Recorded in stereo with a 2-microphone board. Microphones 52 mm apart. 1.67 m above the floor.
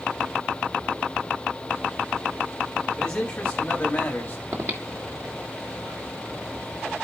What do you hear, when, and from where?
3.0 s a man speaking: 15° left (ahead or behind), 3 m; by 4.4 s 35° left (ahead or behind), 3.5 m
4.5 s breathing: 55° right (ahead or behind), 1.8 m